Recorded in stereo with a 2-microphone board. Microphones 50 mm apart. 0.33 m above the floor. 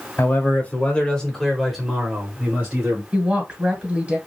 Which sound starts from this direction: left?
A man speaking, at 0.2 s.